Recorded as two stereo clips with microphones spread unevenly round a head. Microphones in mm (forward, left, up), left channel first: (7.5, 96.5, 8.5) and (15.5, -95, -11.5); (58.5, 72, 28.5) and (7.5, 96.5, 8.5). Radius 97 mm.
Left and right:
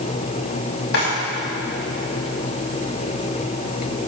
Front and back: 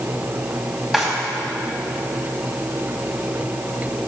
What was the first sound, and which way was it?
A drawer, 65° left.